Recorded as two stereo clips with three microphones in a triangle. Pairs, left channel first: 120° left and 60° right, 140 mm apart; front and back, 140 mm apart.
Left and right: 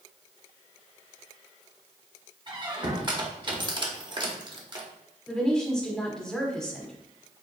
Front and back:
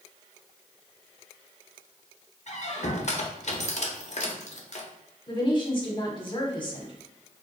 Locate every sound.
2.5 s a squeak: 10° right, 0.8 m
5.3 s a woman speaking: 40° left, 1.1 m